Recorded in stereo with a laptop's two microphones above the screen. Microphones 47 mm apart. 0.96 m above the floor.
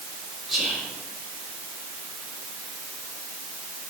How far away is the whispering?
About 1.8 m.